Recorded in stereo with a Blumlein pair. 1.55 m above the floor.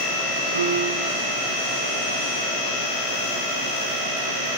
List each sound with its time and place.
0.6 s a piano: 70° right, 1.9 m